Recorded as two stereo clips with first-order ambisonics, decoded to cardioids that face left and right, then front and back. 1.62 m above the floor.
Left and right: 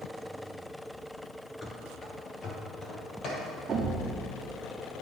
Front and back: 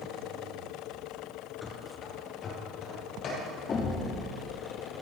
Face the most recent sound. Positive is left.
turn(degrees=-50)